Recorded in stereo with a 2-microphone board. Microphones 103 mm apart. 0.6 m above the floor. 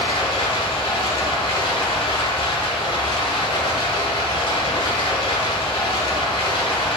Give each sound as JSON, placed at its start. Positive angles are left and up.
{"t": 0.0, "sound": "running water", "side_deg": 50, "distance_m": 0.9}